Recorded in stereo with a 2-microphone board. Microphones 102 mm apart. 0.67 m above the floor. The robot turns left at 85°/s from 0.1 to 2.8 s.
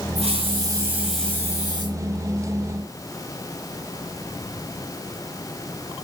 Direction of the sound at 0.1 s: 95° right.